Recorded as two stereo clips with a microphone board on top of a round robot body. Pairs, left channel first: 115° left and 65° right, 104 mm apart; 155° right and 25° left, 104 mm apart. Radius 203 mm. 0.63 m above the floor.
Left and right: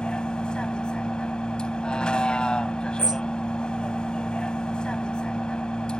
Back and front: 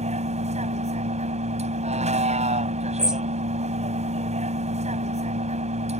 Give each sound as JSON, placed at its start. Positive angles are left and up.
{"t": 0.0, "sound": "a vehicle", "azimuth_deg": 30}
{"t": 3.0, "sound": "a bird", "azimuth_deg": -55}